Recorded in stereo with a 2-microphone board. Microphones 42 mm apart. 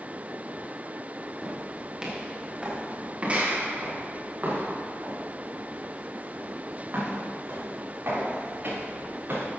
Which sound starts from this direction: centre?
Footsteps, at 1.4 s.